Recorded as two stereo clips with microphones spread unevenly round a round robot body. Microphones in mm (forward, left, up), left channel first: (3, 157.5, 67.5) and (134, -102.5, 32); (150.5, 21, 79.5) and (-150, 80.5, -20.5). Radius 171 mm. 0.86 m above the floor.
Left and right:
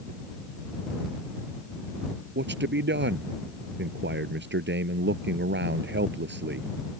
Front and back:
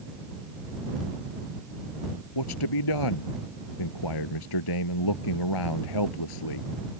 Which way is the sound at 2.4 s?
10° right.